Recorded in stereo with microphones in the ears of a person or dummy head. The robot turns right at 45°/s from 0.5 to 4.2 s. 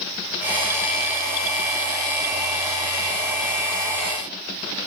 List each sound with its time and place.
Only background noise.